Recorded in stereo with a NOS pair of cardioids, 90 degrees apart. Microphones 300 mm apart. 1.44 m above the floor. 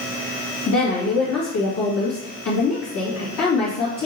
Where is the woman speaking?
55° left, 2 m.